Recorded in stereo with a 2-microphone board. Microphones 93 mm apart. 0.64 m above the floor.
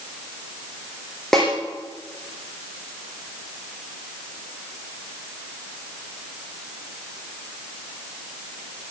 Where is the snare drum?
5° left (ahead or behind), 8 m.